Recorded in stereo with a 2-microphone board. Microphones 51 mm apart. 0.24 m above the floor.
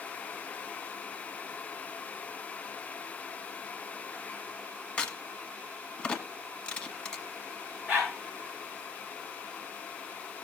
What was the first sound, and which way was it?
A crack, 20° left (ahead or behind).